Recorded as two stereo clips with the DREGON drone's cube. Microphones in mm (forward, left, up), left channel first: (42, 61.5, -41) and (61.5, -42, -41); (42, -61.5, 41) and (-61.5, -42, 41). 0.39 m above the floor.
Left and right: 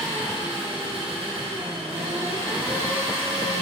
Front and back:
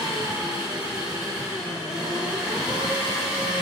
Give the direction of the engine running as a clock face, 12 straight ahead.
4 o'clock.